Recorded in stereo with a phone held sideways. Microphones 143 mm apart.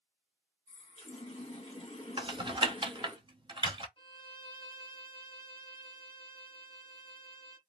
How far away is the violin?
About 0.6 m.